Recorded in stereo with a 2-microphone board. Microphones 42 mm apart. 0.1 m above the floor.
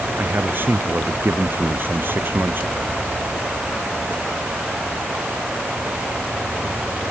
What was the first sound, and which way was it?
A man speaking, 50° right (ahead or behind).